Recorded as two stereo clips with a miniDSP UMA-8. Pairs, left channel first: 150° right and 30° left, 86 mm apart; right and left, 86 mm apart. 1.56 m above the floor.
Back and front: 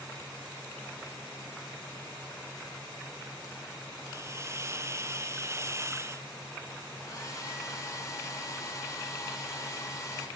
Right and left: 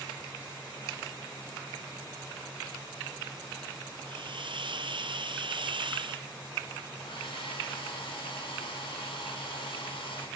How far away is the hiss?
About 0.7 m.